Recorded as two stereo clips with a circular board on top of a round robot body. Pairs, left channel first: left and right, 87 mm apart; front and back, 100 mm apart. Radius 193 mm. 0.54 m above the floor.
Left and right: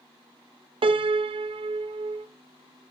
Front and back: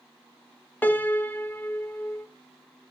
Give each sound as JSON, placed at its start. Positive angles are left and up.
{"t": 0.8, "sound": "a piano", "azimuth_deg": -75, "distance_m": 0.5}